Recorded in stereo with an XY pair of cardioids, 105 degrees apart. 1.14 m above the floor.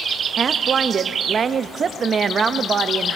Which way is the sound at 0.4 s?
45° right.